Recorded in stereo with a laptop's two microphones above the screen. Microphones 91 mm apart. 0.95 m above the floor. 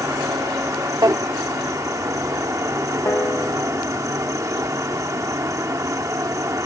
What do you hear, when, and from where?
0.0 s an insect: 35° right (ahead or behind)
1.0 s a drawer: 40° right (ahead or behind)
3.0 s a piano: 25° left (ahead or behind)